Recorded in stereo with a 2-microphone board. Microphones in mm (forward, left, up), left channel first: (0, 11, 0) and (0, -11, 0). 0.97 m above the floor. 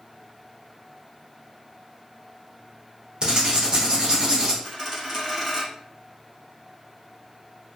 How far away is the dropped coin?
About 1.0 m.